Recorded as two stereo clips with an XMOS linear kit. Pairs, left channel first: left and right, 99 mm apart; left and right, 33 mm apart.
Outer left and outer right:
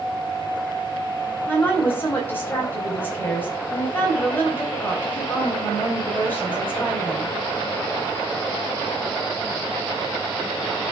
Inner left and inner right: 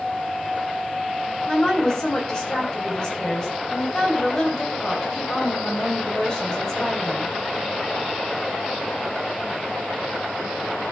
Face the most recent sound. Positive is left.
turn(degrees=20)  # may be behind; listen again after turning